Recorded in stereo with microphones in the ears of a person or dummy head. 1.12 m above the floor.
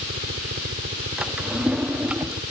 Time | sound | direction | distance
0.0 | a helicopter | 45° right (ahead or behind) | ?
1.2 | a drawer | 5° right (ahead or behind) | ?